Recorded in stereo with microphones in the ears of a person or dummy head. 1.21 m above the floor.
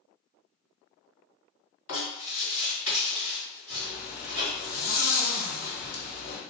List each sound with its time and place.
1.9 s writing: 45° left (ahead or behind), 1.7 m
3.7 s a zipper: 40° left (ahead or behind), 1.0 m